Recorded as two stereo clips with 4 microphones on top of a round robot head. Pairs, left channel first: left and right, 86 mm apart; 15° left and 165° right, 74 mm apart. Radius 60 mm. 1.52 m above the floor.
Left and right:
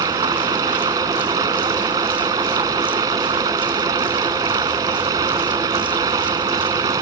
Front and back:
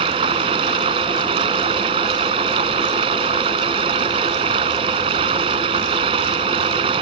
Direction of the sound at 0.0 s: 150° right.